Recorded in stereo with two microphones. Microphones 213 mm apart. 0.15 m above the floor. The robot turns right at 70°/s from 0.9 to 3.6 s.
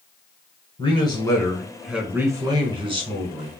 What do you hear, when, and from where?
0.8 s a man speaking: 20° left (ahead or behind), 1.2 m; by 3.5 s 20° right (ahead or behind), 1.2 m